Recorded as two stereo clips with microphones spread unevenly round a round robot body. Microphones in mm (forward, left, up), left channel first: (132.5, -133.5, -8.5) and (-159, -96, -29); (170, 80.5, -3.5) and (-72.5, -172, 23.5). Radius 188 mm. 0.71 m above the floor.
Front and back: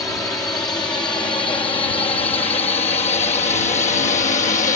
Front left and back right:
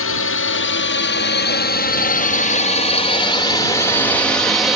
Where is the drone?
75° left; by 4.8 s 35° right.